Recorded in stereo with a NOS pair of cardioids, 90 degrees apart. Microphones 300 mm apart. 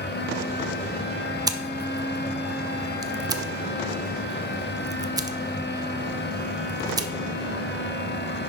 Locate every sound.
0.0 s a fan: 35° left, 1.5 m
1.5 s scissors: 15° right, 0.9 m